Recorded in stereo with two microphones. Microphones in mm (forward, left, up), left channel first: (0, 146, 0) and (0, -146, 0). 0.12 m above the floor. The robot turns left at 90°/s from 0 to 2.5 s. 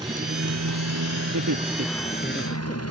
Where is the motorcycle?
10° right; by 2.9 s 125° left.